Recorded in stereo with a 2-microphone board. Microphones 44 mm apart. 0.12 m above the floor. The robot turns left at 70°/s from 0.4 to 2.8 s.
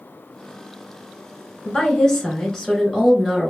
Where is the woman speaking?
20° left (ahead or behind), 1.1 m; by 3.5 s centre (ahead or behind), 1.1 m.